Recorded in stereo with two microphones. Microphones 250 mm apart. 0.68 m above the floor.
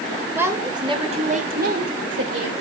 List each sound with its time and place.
0.3 s a woman speaking: 10° right (ahead or behind), 2.5 m; by 2.5 s 55° right (ahead or behind), 2.5 m